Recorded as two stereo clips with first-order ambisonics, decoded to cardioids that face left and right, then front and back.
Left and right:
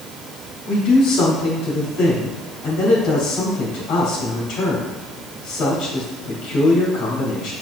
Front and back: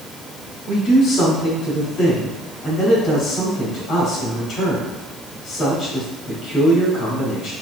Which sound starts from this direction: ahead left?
A man speaking, at 0.7 s.